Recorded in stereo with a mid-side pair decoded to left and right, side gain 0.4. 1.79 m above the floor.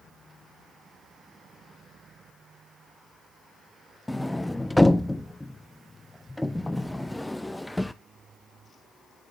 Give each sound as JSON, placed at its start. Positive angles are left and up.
{"t": 4.1, "sound": "a sliding door", "azimuth_deg": 10, "distance_m": 0.8}